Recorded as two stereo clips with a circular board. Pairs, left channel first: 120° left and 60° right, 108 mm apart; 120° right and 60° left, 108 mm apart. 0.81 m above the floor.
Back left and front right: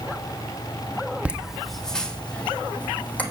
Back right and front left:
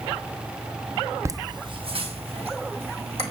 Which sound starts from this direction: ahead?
Laughter, at 1.2 s.